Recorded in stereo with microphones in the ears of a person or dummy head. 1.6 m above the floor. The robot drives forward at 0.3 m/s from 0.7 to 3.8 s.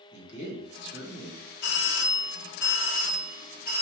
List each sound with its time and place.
0.1 s a man speaking: 70° left (ahead or behind), 1.8 m; by 1.4 s 75° left (ahead or behind), 1.7 m
1.6 s a doorbell: 50° left (ahead or behind), 0.6 m; by 3.8 s 35° left (ahead or behind), 0.8 m